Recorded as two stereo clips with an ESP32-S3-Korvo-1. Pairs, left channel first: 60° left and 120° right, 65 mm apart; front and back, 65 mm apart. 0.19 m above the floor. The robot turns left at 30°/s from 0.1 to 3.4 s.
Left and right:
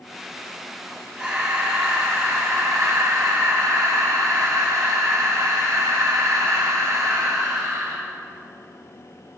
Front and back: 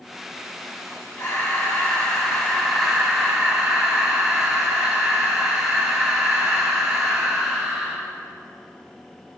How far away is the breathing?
About 3.5 m.